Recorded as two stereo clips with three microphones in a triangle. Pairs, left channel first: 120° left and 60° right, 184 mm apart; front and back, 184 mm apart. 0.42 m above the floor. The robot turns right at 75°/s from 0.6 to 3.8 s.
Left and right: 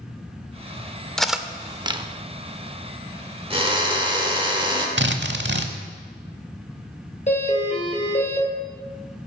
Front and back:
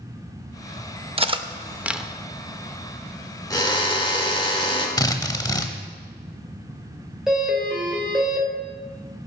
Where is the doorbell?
95° left, 2.5 m.